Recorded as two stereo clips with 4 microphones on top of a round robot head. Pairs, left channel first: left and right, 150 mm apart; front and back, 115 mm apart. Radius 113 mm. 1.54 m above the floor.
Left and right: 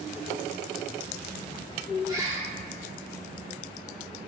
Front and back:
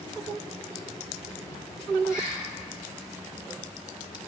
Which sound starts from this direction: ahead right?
A bird, at 2.1 s.